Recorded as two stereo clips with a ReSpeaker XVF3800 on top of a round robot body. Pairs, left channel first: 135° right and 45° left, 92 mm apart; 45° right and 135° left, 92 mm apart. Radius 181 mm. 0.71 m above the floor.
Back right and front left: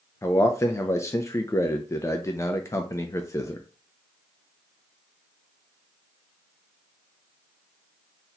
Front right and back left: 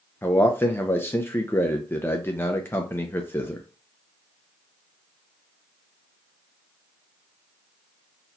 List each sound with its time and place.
0.2 s a man speaking: 95° right, 0.7 m